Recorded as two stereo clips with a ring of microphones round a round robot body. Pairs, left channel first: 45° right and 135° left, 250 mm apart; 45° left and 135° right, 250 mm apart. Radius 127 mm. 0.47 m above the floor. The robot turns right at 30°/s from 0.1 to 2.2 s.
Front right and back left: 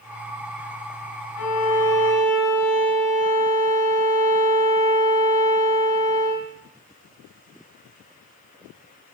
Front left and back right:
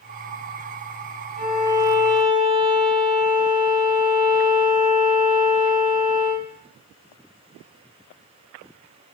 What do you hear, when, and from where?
1.4 s a violin: 75° right, 1.1 m; by 6.5 s 50° right, 1.1 m